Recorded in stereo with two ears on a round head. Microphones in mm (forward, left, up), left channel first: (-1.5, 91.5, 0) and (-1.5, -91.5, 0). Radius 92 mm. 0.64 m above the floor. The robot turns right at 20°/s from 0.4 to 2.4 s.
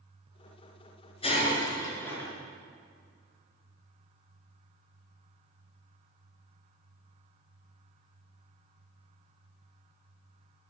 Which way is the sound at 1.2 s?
30° left (ahead or behind).